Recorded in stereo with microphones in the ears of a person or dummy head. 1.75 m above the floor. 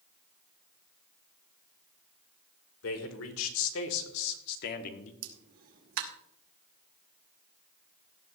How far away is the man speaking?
About 2 m.